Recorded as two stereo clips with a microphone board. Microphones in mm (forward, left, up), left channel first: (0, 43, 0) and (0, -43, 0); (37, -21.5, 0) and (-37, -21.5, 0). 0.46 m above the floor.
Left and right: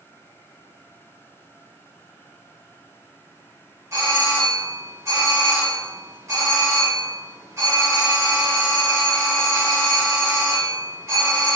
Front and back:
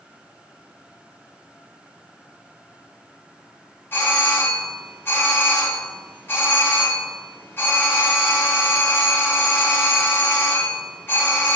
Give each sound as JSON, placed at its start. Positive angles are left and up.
{"t": 3.9, "sound": "a doorbell", "azimuth_deg": -50, "distance_m": 3.0}